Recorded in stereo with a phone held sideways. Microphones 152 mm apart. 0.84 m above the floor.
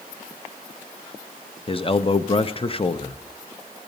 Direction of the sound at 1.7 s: 35° left (ahead or behind).